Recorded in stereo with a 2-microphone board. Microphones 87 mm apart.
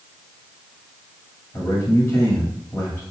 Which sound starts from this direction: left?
A man speaking, at 1.5 s.